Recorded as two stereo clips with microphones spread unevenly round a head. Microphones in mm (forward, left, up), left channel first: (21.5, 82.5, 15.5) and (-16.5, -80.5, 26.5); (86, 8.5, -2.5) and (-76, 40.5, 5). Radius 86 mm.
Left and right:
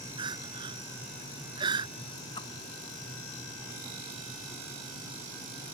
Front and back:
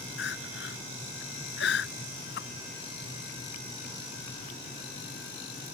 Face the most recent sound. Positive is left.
turn(degrees=10)